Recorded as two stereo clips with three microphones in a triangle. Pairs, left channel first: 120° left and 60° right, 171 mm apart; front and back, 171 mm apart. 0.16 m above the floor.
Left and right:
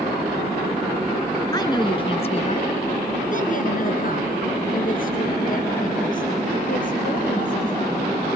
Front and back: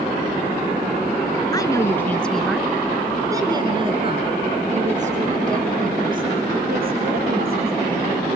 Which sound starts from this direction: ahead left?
A woman speaking, at 1.5 s.